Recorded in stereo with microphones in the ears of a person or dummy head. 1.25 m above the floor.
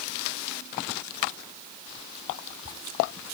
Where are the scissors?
I don't hear scissors.